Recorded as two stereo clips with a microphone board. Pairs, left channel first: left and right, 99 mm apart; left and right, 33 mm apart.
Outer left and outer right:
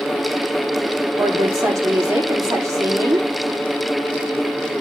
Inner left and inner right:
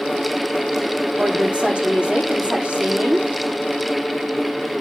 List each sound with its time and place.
1.2 s a woman speaking: 35° right (ahead or behind), 6.5 m